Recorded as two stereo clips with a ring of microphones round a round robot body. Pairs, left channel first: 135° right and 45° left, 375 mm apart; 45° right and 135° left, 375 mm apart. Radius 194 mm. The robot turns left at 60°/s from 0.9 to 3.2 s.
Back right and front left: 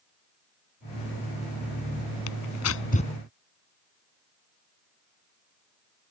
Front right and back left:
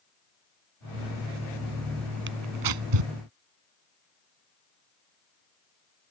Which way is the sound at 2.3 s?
165° right.